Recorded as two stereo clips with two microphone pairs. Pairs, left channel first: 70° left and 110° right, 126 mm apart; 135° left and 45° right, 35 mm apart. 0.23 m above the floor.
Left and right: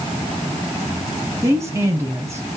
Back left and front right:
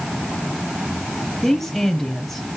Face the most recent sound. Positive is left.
turn(degrees=-150)